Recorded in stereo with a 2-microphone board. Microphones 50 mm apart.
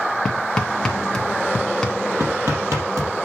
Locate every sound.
0.2 s hammering: 10° left (ahead or behind), 1.7 m
2.2 s hammering: 60° right (ahead or behind), 4 m